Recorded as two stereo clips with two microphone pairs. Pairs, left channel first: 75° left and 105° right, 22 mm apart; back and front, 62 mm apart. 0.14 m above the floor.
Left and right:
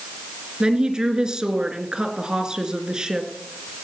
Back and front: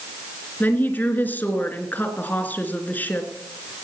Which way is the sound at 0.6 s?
130° right.